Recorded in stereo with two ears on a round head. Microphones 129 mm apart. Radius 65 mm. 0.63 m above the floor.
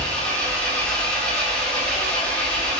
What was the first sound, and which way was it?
An engine running, 10° left (ahead or behind).